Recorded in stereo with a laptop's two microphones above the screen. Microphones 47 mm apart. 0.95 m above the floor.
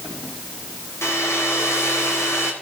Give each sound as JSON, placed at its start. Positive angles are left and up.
{"t": 1.0, "sound": "a hair dryer", "side_deg": 80, "distance_m": 2.0}